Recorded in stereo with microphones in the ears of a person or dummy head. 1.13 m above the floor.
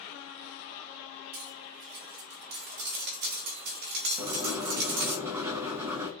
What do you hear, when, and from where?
1.3 s cutlery clinking: 55° right (ahead or behind), 1.2 m
4.2 s writing: 10° right (ahead or behind), 0.8 m